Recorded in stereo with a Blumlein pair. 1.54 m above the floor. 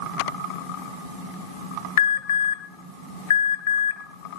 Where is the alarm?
60° left, 1.6 m.